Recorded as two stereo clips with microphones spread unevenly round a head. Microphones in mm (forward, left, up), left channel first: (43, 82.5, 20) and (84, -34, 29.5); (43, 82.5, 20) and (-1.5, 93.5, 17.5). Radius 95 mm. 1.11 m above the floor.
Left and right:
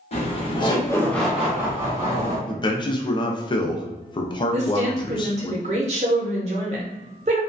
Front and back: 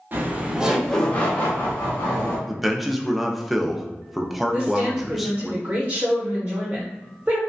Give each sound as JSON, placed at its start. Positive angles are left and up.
{"t": 0.1, "sound": "laughter", "azimuth_deg": 130, "distance_m": 0.9}
{"t": 2.5, "sound": "a man speaking", "azimuth_deg": 85, "distance_m": 0.5}
{"t": 4.5, "sound": "a woman speaking", "azimuth_deg": -120, "distance_m": 0.5}